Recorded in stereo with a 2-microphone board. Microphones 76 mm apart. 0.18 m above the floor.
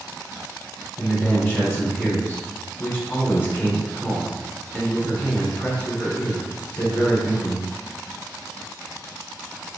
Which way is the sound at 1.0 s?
25° left (ahead or behind).